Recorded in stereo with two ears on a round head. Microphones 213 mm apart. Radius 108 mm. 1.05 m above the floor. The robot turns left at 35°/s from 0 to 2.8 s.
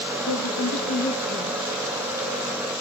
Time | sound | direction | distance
0.3 | a woman speaking | 70° left | 1.2 m